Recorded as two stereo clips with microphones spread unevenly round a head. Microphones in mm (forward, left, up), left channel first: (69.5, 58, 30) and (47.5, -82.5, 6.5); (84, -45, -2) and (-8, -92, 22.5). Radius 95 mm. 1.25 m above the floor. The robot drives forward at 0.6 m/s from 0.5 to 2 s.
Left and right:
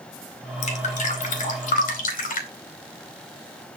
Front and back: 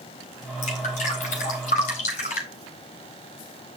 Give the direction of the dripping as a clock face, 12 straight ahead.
10 o'clock.